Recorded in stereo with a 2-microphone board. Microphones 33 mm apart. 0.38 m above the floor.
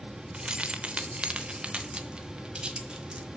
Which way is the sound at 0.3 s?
30° right (ahead or behind).